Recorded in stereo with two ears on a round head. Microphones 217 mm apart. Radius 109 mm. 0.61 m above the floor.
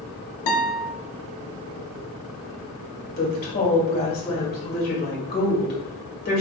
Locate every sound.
0.5 s a guitar: 60° left (ahead or behind), 1.0 m
3.2 s a woman speaking: 40° left (ahead or behind), 2.0 m